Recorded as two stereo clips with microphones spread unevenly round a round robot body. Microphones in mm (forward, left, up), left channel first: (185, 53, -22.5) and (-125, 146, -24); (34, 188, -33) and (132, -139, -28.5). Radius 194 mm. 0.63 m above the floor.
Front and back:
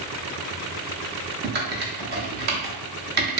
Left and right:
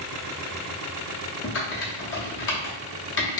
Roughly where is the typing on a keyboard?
Behind left.